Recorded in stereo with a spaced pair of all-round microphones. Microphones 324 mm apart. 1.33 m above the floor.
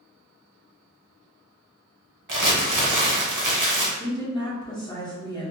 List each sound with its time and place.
2.3 s crumpling: 80° right, 0.7 m
4.0 s a woman speaking: 15° left (ahead or behind), 1.2 m